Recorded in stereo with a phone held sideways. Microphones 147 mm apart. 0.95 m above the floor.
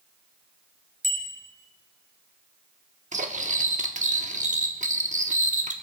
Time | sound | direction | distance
1.0 | a bicycle bell | 55° right (ahead or behind) | 3 m
3.1 | cutlery clinking | 60° right (ahead or behind) | 1.0 m